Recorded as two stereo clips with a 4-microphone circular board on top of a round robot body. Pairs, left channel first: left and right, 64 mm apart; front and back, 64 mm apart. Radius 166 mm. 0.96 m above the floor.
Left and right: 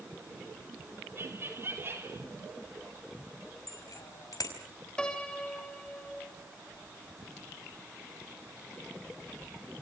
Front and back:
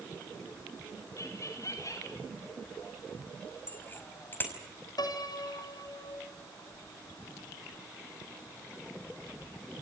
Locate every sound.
1.2 s laughter: 40° right, 3.5 m
3.7 s a bicycle bell: 60° left, 5 m
5.0 s a piano: 10° left, 3.5 m